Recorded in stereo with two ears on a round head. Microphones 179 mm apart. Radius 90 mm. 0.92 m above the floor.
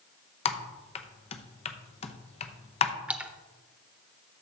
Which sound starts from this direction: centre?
A splash, at 3.1 s.